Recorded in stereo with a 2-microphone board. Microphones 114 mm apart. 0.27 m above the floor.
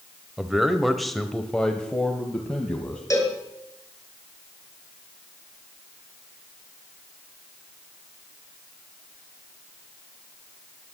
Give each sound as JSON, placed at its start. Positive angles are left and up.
{"t": 0.4, "sound": "a man speaking", "side_deg": -5, "distance_m": 1.0}
{"t": 3.1, "sound": "a cowbell", "side_deg": 30, "distance_m": 2.5}